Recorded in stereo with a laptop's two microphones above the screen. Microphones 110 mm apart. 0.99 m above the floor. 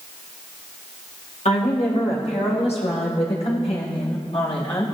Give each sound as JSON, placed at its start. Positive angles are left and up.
{"t": 1.4, "sound": "a woman speaking", "side_deg": 80, "distance_m": 5.0}